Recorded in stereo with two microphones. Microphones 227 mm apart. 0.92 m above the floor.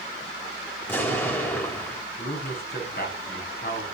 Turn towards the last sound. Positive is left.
turn(degrees=45)  # may be behind; listen again after turning